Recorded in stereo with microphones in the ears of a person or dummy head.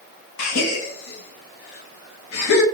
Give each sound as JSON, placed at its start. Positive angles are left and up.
{"t": 0.4, "sound": "a gasp", "side_deg": 90, "distance_m": 0.7}